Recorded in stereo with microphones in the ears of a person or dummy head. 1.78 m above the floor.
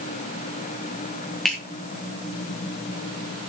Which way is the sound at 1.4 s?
Centre (ahead or behind).